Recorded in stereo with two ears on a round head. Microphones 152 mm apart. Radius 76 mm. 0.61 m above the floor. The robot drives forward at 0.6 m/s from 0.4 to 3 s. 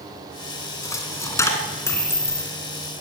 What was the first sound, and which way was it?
A dropped coin, 20° left (ahead or behind).